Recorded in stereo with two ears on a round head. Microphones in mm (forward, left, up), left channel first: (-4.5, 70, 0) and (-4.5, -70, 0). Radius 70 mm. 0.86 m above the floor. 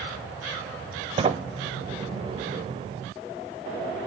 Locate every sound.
1.2 s a sliding door: 35° right (ahead or behind), 1.0 m